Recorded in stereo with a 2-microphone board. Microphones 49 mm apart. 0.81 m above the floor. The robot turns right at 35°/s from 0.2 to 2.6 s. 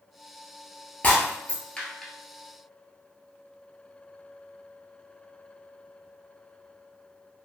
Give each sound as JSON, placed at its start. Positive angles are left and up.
{"t": 1.0, "sound": "breaking glass", "side_deg": 30, "distance_m": 0.9}